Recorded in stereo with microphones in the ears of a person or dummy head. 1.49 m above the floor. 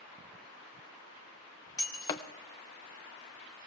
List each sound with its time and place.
1.8 s breaking glass: 20° left (ahead or behind), 0.6 m